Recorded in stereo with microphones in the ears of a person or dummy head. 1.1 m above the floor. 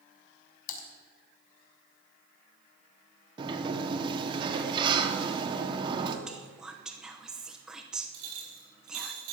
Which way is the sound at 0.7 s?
45° left (ahead or behind).